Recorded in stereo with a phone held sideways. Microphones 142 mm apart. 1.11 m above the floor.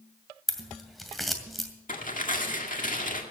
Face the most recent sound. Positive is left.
turn(degrees=65)  # may be behind; listen again after turning